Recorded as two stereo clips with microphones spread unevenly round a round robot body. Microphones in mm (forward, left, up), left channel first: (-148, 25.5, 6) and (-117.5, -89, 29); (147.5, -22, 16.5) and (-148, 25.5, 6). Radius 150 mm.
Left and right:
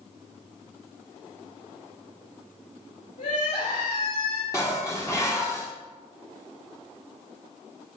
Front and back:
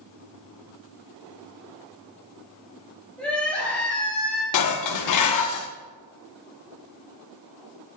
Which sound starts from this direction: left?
Crying, at 3.2 s.